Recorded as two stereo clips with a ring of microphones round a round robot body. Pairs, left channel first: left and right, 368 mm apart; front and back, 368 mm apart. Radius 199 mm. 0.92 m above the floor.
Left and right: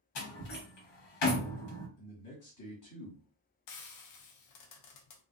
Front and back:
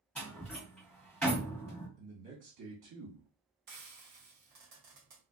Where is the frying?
115° left, 0.6 m.